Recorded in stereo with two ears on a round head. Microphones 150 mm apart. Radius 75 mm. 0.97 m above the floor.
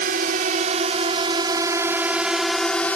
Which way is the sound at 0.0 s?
55° right (ahead or behind).